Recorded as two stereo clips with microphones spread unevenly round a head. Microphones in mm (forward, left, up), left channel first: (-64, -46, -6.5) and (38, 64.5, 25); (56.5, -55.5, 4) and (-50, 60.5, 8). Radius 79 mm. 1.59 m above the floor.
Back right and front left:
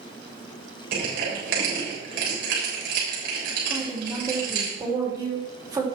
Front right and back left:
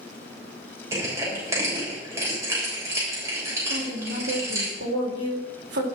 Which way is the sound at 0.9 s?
60° left.